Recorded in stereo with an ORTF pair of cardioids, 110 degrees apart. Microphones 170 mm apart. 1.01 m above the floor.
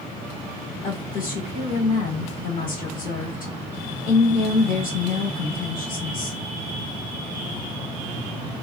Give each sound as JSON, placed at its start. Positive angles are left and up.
{"t": 0.8, "sound": "a woman speaking", "azimuth_deg": 60, "distance_m": 2.0}